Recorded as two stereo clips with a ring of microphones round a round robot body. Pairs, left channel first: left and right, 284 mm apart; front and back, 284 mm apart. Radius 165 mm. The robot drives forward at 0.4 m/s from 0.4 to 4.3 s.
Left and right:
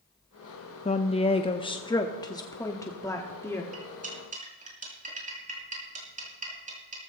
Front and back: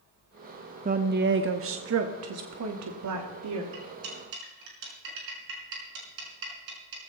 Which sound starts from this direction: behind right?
Cutlery clinking, at 3.7 s.